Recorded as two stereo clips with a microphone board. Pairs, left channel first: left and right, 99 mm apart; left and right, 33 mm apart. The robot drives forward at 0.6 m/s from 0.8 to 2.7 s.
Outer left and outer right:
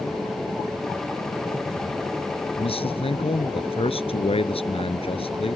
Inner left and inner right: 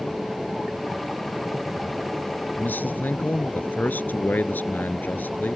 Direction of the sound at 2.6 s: 80° left.